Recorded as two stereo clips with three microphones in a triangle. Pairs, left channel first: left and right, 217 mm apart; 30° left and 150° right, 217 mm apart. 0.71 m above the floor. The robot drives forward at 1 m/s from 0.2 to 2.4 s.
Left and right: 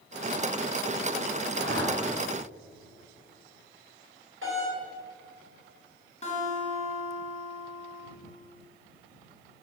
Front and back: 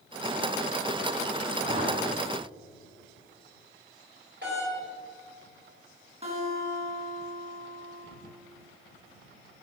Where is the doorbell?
110° right, 4 m.